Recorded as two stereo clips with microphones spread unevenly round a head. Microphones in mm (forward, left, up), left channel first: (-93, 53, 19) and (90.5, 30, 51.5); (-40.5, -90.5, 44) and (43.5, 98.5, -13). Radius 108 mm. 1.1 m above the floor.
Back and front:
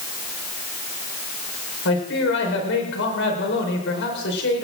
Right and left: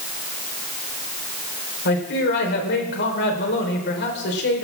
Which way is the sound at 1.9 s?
155° right.